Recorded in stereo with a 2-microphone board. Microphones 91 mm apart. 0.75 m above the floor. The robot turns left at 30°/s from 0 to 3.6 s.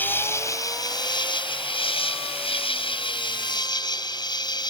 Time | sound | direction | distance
0.0 | an insect | 160° left | ?